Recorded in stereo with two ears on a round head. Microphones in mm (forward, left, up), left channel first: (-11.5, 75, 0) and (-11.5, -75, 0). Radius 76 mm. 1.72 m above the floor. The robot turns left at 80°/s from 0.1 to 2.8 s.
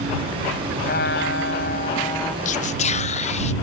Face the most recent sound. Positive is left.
turn(degrees=40)  # may be behind; listen again after turning